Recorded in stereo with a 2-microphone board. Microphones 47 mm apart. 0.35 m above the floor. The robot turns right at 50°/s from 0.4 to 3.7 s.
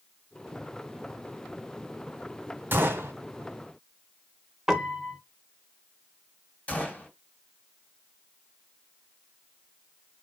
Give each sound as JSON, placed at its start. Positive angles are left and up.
{"t": 2.7, "sound": "a gunshot", "side_deg": -55, "distance_m": 1.0}
{"t": 4.7, "sound": "a piano", "side_deg": -10, "distance_m": 0.6}
{"t": 6.7, "sound": "a gunshot", "side_deg": 30, "distance_m": 1.5}